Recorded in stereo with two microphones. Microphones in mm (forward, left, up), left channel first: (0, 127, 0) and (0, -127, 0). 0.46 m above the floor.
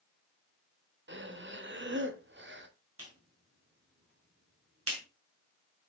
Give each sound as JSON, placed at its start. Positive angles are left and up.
{"t": 1.1, "sound": "breathing", "side_deg": -45, "distance_m": 0.7}
{"t": 3.0, "sound": "a clap", "side_deg": -65, "distance_m": 2.5}